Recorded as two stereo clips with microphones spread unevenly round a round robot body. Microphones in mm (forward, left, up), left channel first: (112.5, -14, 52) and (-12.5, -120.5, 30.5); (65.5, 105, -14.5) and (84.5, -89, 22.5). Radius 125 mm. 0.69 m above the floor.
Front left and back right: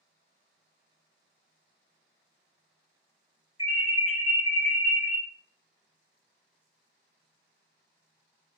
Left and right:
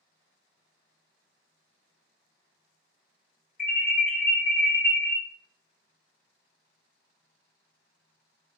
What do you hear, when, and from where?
3.6 s an alarm: 45° left, 1.7 m